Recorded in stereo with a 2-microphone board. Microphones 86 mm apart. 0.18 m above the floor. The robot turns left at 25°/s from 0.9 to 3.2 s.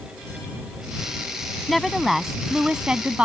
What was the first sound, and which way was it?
A woman speaking, centre (ahead or behind).